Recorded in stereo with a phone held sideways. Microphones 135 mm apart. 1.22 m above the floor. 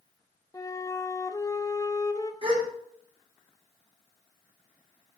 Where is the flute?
25° left (ahead or behind), 0.7 m.